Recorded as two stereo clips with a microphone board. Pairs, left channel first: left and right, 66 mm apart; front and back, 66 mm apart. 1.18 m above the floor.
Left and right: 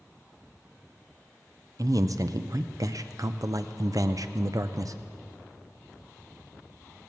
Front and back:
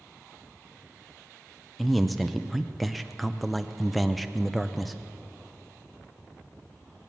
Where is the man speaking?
90° right, 0.6 m.